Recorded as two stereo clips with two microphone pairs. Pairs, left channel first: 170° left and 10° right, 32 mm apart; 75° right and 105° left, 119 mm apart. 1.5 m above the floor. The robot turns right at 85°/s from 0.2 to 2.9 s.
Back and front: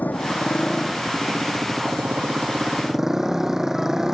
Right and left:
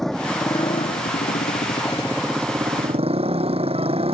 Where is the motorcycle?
160° right; by 4.1 s 70° left.